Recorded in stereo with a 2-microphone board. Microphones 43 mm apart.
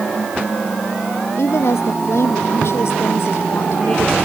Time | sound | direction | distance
1.4 | a woman speaking | 75° left (ahead or behind) | ?